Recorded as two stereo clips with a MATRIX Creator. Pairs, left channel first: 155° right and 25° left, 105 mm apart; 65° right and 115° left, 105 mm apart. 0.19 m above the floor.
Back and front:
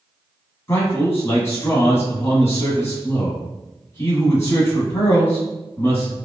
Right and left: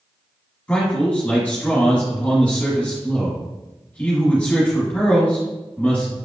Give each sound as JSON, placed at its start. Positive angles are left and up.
{"t": 0.7, "sound": "a man speaking", "azimuth_deg": -125, "distance_m": 1.3}